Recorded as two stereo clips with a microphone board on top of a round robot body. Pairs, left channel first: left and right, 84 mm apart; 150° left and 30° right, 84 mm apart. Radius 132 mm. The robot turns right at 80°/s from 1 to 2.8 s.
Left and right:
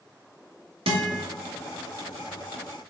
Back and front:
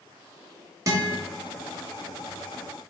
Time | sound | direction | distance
0.9 | a guitar | 85° right | 1.0 m